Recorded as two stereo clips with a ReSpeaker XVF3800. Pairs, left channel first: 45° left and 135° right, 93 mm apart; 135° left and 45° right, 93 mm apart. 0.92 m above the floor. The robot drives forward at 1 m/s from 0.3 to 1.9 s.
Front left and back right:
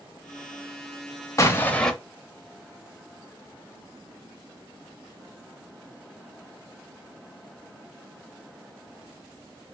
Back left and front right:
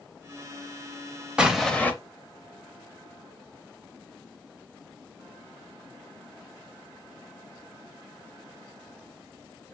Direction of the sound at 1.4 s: 25° left.